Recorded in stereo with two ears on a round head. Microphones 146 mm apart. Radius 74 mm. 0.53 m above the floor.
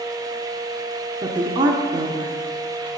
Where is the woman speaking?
30° right (ahead or behind), 0.9 m.